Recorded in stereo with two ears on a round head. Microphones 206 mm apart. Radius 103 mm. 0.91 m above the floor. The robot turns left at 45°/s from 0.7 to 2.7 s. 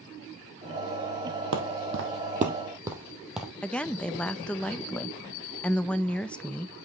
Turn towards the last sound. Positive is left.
turn(degrees=5)  # may be behind; listen again after turning